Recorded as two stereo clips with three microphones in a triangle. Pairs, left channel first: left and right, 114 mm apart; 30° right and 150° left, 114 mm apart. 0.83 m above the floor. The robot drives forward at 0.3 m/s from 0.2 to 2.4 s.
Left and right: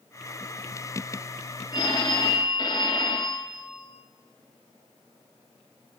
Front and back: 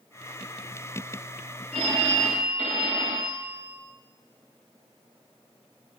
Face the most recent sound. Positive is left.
turn(degrees=140)